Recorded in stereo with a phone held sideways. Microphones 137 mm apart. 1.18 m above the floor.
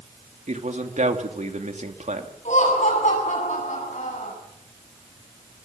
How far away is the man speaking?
About 2.5 m.